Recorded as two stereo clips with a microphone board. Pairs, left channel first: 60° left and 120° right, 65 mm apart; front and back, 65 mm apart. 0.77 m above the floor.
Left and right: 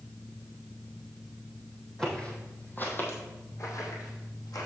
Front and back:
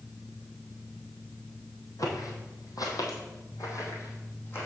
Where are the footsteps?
20° right, 2.0 m; by 4.7 s 50° left, 2.5 m.